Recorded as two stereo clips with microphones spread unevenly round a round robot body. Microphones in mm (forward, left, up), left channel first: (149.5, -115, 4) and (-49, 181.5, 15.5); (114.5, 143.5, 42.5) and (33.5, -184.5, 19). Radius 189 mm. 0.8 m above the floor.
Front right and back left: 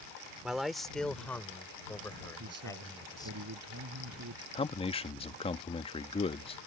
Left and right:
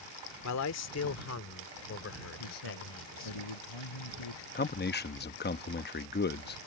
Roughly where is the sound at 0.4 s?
Ahead left.